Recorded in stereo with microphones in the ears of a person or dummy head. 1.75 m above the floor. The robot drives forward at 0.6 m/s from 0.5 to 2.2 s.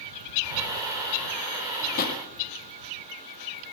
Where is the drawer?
50° left (ahead or behind), 2 m; by 2.2 s 55° left (ahead or behind), 1.9 m.